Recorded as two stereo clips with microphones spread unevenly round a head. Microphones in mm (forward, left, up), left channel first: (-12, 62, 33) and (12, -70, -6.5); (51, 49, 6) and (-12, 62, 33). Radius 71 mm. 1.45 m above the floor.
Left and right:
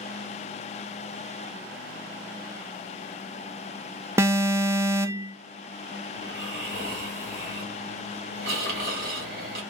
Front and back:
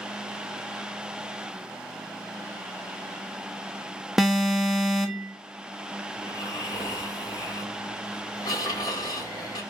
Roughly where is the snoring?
Ahead right.